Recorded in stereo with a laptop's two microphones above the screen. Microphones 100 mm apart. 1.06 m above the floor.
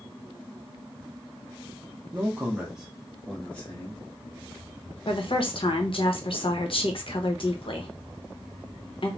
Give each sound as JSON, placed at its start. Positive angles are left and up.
{"t": 2.1, "sound": "a man speaking", "side_deg": -25, "distance_m": 0.7}
{"t": 5.1, "sound": "a woman speaking", "side_deg": 60, "distance_m": 0.8}